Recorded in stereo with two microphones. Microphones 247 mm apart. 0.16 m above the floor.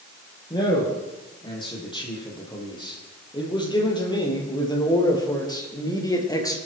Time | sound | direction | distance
0.5 | a man speaking | 20° left (ahead or behind) | 6.5 m